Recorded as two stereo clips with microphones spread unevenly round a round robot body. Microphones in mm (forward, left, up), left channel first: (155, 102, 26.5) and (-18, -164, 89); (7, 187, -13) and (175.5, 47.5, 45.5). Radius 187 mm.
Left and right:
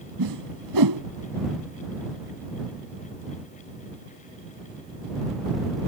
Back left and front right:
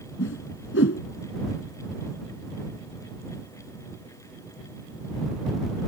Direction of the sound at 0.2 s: 165° right.